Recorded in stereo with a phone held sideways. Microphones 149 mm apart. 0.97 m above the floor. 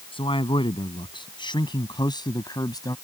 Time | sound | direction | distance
0.1 | a man speaking | 35° left (ahead or behind) | ?